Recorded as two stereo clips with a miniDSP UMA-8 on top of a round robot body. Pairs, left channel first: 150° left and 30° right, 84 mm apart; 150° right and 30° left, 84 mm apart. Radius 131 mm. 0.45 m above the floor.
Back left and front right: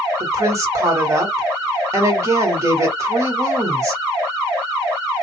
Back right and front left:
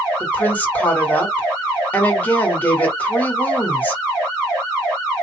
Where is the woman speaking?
80° right, 2 m.